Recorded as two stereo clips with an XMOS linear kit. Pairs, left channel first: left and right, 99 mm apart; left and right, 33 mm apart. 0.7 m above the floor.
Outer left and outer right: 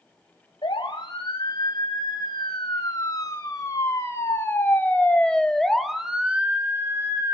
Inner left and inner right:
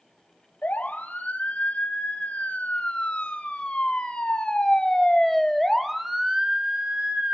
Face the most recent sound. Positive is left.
turn(degrees=-35)  # may be behind; listen again after turning